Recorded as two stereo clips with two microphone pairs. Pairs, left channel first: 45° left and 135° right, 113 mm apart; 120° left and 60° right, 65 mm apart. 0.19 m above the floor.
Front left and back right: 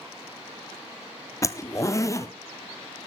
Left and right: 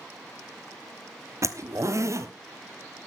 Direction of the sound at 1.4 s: 20° right.